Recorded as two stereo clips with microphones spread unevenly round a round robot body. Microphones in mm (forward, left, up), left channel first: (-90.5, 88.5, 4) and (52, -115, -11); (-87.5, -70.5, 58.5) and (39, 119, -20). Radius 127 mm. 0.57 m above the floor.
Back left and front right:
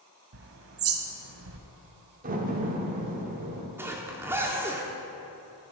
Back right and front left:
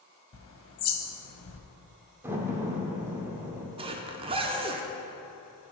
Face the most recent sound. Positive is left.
turn(degrees=20)